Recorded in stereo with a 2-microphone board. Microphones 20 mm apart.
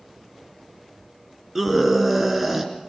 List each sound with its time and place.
1.6 s a scream: 10° right (ahead or behind), 3 m